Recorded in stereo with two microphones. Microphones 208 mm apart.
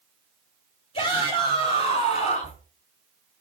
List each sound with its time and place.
0.9 s a shout: 30° left (ahead or behind), 2.5 m; by 2.6 s 40° left (ahead or behind), 4 m